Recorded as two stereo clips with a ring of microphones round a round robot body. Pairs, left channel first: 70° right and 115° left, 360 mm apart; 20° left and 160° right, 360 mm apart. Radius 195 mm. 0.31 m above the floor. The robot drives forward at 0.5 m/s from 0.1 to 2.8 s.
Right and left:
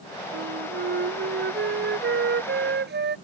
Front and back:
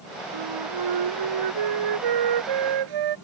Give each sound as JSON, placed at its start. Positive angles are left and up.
{"t": 0.3, "sound": "a flute", "azimuth_deg": 175}